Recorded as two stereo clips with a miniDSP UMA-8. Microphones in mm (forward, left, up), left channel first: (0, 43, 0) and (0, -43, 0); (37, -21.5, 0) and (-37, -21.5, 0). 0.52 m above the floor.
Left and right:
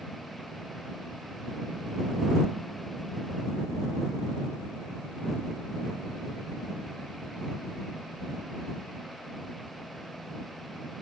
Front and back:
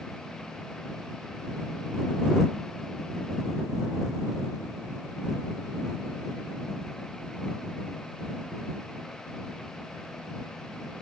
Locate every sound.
Only background noise.